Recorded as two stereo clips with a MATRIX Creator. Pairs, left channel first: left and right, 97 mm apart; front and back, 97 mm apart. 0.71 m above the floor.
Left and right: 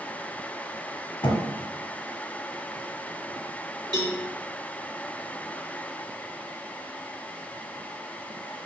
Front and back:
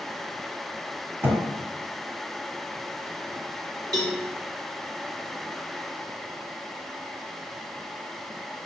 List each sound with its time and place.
1.2 s a thud: 115° left, 1.0 m
3.9 s a cowbell: 135° right, 1.4 m